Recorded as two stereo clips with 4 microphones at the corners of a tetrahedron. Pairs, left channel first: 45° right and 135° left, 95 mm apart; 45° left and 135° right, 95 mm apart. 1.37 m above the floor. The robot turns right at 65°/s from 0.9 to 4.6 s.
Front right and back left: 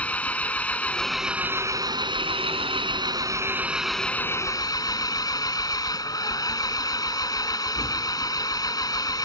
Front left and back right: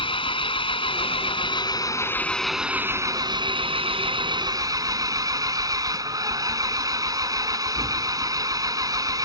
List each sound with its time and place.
0.0 s an engine running: 30° left; by 9.3 s 90° right